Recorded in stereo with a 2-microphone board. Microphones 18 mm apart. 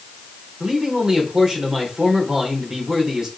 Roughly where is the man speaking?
Right.